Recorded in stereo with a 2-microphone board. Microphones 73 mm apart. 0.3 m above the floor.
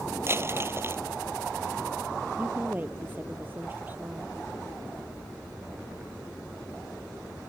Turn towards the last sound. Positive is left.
turn(degrees=-25)  # may be behind; listen again after turning